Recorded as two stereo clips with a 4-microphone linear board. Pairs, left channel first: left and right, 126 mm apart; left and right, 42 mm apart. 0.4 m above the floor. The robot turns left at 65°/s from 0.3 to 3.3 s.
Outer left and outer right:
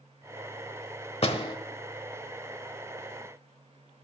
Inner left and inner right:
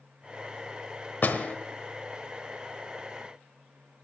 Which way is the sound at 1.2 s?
50° left (ahead or behind).